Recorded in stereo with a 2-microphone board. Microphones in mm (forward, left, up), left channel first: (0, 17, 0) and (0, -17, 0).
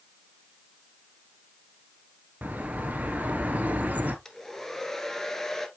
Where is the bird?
55° right (ahead or behind), 1.4 m.